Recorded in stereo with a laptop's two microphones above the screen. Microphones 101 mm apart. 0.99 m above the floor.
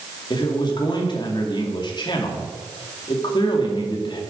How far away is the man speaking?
About 2 m.